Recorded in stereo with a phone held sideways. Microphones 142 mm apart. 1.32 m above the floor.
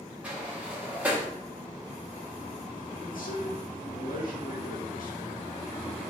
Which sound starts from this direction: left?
A man speaking, at 3.0 s.